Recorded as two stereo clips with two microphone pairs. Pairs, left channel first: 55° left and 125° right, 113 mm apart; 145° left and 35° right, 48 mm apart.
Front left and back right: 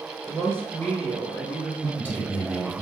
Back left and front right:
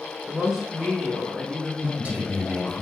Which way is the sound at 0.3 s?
5° left.